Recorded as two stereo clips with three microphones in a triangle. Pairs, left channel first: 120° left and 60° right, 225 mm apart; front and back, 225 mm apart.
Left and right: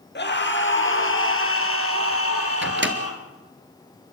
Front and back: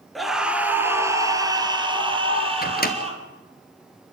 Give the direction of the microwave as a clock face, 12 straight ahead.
1 o'clock.